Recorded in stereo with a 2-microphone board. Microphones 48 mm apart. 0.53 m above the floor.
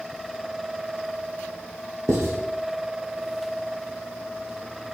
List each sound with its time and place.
2.1 s writing: 90° right, 7.5 m